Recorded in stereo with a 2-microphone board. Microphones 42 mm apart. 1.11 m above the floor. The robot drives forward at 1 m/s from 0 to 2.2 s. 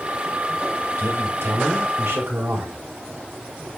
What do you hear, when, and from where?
1.0 s a man speaking: 80° right, 6.5 m; by 2.8 s 85° right, 6.5 m